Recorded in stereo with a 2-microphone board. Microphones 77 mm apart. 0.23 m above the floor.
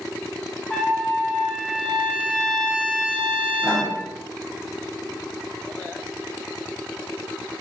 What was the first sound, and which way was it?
A trumpet, 15° left (ahead or behind).